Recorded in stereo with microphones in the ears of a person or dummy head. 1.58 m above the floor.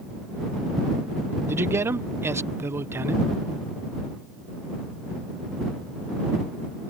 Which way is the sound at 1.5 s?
20° right (ahead or behind).